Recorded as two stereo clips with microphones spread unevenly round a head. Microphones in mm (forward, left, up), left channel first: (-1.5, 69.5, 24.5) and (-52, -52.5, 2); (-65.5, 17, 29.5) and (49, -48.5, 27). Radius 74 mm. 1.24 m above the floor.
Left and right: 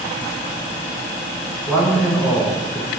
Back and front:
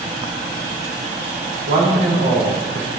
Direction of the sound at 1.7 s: 30° right.